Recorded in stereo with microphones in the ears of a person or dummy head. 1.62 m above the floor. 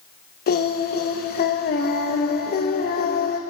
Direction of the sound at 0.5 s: 50° left (ahead or behind).